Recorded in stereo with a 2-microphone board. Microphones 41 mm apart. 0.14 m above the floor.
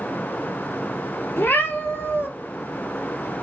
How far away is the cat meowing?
About 0.6 m.